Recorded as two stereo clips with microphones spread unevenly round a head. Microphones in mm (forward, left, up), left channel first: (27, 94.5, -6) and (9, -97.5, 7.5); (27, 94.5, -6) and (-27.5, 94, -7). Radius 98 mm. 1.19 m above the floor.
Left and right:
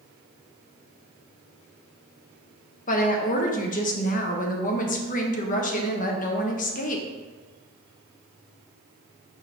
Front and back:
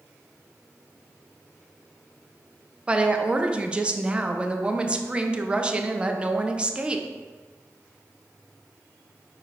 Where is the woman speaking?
120° left, 0.8 m.